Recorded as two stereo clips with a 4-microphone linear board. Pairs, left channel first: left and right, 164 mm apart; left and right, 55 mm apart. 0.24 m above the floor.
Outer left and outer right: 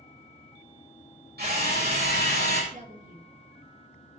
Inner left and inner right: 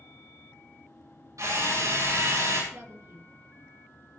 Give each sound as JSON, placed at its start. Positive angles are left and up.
{"t": 1.4, "sound": "a drill", "side_deg": -80, "distance_m": 8.0}
{"t": 2.7, "sound": "a woman speaking", "side_deg": -50, "distance_m": 2.5}